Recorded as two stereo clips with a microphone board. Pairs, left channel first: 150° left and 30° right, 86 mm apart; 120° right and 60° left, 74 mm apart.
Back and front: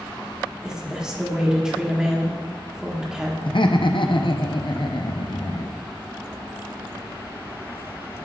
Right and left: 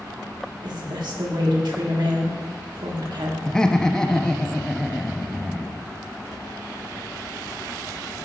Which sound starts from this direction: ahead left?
A woman speaking, at 0.6 s.